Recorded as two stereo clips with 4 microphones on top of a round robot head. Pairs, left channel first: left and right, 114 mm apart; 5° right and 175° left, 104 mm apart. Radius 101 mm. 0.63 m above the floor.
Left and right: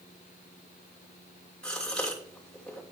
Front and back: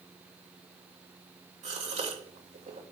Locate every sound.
1.6 s a gasp: 175° left, 2.5 m